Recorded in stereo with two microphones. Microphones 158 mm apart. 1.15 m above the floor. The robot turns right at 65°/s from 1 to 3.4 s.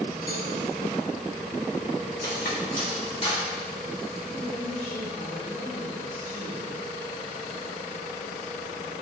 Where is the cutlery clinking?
75° left (ahead or behind), 2.5 m; by 3.5 s 30° left (ahead or behind), 2.5 m.